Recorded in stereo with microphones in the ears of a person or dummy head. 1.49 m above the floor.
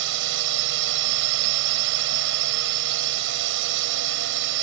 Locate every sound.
0.0 s a drone: 75° right (ahead or behind)